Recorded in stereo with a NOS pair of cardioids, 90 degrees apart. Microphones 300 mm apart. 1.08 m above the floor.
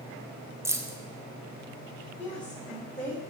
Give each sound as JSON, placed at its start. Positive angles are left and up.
{"t": 0.7, "sound": "keys jangling", "azimuth_deg": -10, "distance_m": 0.6}
{"t": 2.2, "sound": "a woman speaking", "azimuth_deg": 5, "distance_m": 3.0}